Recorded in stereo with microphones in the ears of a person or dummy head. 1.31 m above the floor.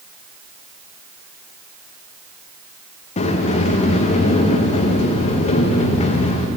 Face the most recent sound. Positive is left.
turn(degrees=45)  # may be behind; listen again after turning